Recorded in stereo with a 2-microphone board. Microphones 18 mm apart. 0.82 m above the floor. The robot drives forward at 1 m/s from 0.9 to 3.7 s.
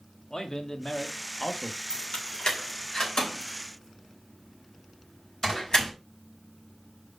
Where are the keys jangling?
65° left (ahead or behind), 2 m; by 5.9 s 35° left (ahead or behind), 3.5 m.